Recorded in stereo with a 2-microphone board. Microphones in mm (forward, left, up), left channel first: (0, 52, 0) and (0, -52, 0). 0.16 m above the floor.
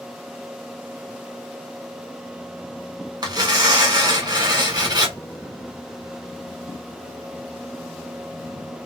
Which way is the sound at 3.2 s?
40° right (ahead or behind).